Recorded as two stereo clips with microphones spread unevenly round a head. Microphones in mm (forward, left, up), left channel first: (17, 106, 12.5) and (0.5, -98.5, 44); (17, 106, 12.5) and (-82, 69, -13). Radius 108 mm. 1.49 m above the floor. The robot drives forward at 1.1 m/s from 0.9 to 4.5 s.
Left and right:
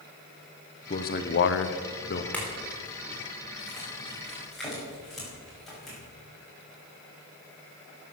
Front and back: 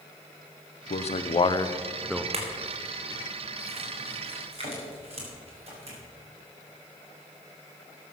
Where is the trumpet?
No trumpet in this recording.